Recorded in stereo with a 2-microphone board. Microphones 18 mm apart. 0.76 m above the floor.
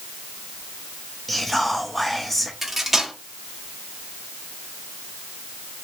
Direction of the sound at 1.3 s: 10° left (ahead or behind).